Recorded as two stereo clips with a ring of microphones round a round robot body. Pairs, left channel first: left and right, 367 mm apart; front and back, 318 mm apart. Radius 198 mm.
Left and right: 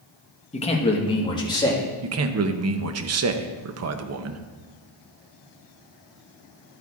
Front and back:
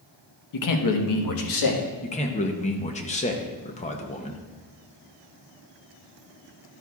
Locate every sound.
0.5 s a man speaking: 20° left, 1.1 m; by 1.9 s 10° left, 1.8 m
2.0 s a man speaking: 60° right, 0.8 m